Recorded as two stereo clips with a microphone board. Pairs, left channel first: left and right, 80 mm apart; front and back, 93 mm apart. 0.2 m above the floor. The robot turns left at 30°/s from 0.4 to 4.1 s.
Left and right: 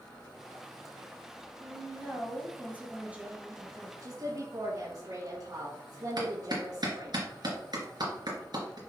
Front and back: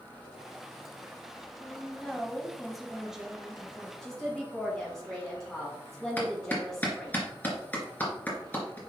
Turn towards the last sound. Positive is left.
turn(degrees=-70)